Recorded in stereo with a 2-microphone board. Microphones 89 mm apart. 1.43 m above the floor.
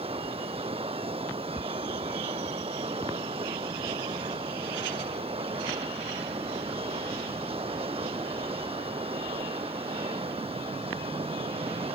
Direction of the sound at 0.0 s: 90° right.